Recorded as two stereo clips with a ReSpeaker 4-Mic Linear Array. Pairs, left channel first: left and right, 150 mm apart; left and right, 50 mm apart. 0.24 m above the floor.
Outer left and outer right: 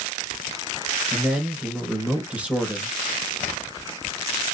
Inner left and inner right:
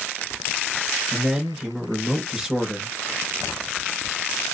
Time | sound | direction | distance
1.1 | a man speaking | 10° right (ahead or behind) | 3 m